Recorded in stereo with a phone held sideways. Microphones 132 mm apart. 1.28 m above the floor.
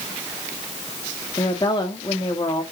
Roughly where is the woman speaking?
Left.